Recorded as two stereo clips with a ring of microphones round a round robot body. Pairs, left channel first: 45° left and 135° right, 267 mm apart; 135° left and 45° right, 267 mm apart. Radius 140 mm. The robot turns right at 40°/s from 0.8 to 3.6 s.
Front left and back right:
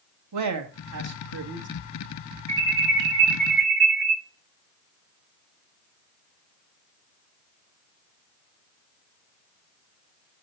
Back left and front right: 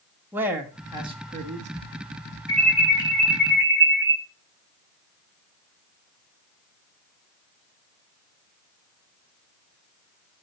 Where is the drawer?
I don't hear a drawer.